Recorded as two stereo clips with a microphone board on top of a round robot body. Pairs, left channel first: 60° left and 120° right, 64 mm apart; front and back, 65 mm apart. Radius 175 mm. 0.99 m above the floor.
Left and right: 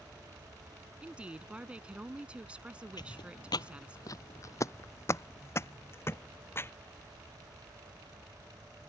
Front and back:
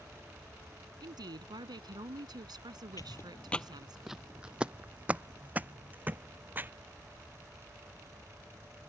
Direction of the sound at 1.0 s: 165° left.